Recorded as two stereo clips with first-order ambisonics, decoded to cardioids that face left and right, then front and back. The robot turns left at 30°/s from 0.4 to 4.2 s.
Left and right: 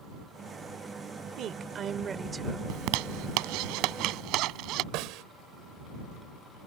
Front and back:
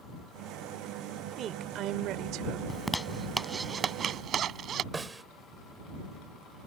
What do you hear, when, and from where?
1.4 s a woman speaking: 130° right; by 2.6 s 170° right
2.7 s a zipper: 80° right; by 4.8 s 125° right
4.9 s a snare drum: 105° right